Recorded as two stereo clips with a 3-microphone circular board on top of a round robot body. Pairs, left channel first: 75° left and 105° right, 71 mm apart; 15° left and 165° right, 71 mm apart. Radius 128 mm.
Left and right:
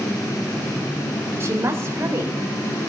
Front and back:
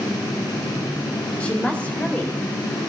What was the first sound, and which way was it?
A woman speaking, 55° right.